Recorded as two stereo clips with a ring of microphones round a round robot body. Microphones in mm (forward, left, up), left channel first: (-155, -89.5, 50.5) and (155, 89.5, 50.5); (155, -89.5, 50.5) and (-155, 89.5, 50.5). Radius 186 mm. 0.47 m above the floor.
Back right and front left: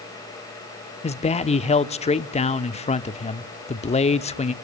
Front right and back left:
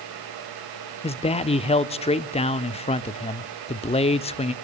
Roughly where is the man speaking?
Right.